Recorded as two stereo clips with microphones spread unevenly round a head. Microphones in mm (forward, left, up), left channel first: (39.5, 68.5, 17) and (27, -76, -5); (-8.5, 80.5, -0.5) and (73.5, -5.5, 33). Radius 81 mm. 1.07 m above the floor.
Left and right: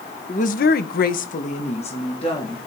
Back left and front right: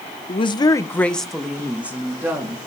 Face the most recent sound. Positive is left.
turn(degrees=30)